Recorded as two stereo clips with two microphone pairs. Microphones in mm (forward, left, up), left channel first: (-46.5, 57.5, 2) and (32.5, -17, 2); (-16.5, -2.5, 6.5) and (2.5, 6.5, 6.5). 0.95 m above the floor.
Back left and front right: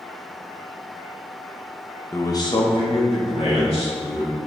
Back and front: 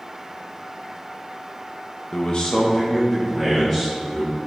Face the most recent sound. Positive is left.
turn(degrees=130)